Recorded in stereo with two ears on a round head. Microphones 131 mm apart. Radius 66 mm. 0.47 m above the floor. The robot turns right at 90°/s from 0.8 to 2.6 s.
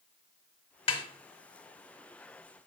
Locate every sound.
0.9 s a snare drum: 40° left (ahead or behind), 0.6 m; by 1.0 s 30° left (ahead or behind), 0.6 m